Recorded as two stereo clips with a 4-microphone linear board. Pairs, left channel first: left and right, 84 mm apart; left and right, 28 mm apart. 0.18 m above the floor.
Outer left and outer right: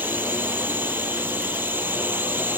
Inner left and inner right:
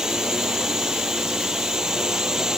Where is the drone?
25° right (ahead or behind).